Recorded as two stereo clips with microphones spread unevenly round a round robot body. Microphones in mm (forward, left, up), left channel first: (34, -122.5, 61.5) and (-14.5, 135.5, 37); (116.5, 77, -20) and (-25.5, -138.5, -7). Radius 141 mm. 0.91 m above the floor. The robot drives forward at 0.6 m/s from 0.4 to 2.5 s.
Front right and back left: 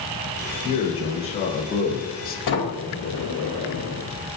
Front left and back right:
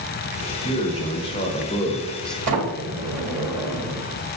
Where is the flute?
I don't hear a flute.